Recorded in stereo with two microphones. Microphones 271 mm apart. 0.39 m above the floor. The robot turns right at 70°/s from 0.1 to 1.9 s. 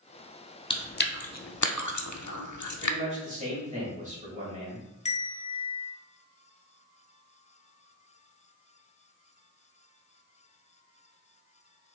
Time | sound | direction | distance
0.7 | chewing | 15° left (ahead or behind) | 0.6 m
2.8 | a man speaking | 25° right (ahead or behind) | 1.8 m
5.0 | a bell | 25° left (ahead or behind) | 0.6 m